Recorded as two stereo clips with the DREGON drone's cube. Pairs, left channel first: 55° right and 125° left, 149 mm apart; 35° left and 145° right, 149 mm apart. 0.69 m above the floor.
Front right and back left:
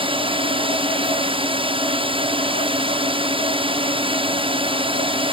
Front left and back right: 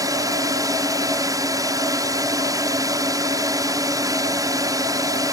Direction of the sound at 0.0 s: 160° left.